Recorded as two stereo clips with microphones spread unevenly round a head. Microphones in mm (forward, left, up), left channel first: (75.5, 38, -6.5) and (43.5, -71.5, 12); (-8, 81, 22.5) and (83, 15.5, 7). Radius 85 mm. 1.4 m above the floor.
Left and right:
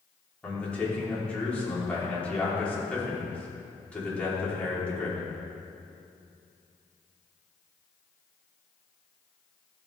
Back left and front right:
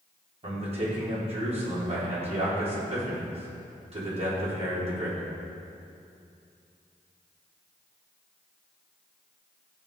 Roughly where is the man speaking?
Ahead.